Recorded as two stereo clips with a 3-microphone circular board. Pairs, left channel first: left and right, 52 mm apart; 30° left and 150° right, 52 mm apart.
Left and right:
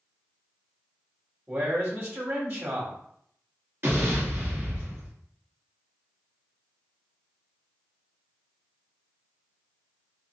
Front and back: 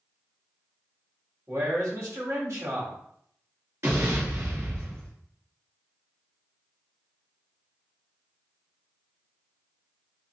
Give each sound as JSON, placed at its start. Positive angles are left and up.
{"t": 1.5, "sound": "a man speaking", "azimuth_deg": -130, "distance_m": 1.9}
{"t": 3.8, "sound": "an explosion", "azimuth_deg": -125, "distance_m": 2.0}